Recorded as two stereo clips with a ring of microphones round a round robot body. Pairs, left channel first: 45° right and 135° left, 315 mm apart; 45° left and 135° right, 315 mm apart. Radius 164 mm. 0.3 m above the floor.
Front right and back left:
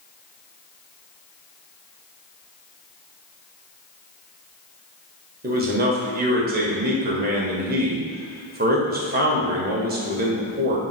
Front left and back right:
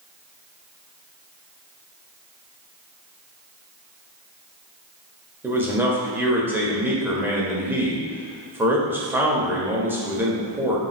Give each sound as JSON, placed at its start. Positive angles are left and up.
{"t": 5.4, "sound": "a man speaking", "azimuth_deg": 150, "distance_m": 1.5}